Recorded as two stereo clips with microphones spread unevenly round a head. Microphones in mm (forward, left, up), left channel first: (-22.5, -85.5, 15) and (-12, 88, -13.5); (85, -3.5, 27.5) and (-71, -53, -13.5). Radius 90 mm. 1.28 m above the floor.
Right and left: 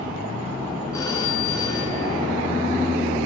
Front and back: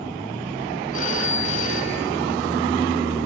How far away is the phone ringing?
About 8.5 m.